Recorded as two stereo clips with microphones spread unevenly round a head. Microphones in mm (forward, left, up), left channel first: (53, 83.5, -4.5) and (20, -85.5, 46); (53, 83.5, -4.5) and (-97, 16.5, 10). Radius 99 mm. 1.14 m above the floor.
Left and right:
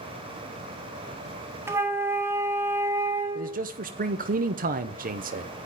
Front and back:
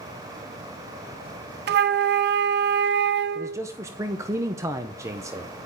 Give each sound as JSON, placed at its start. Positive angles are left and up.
{"t": 1.7, "sound": "a flute", "azimuth_deg": -175, "distance_m": 0.6}
{"t": 3.4, "sound": "a man speaking", "azimuth_deg": -90, "distance_m": 0.7}